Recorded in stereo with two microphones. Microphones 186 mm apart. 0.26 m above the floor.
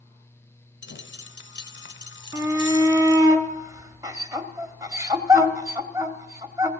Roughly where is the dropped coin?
Left.